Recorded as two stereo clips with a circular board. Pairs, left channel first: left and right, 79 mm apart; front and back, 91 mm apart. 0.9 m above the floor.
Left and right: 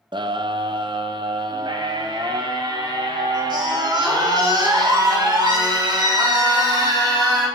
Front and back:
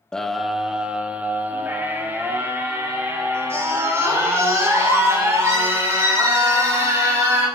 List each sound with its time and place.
0.1 s a scream: 80° right, 0.6 m; by 7.5 s 120° right, 4 m